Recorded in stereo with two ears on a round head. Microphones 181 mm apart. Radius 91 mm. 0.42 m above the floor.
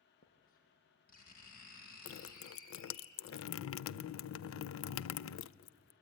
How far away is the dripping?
About 0.5 m.